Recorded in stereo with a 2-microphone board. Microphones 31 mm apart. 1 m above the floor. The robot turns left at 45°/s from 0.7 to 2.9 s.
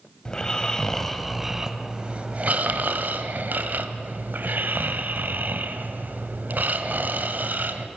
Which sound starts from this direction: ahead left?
Snoring, at 0.2 s.